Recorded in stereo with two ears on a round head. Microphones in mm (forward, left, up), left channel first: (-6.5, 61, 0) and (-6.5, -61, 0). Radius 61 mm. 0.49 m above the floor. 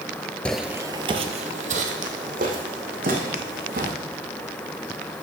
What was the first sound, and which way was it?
Footsteps, 10° left (ahead or behind).